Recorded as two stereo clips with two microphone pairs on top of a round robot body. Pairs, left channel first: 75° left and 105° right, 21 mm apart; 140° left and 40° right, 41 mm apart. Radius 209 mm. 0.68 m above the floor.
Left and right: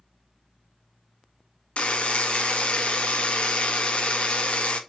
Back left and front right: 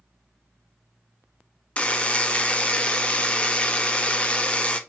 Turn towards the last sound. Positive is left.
turn(degrees=80)